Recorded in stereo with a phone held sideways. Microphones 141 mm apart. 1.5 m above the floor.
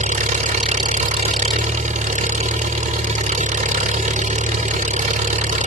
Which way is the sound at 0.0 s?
60° right (ahead or behind).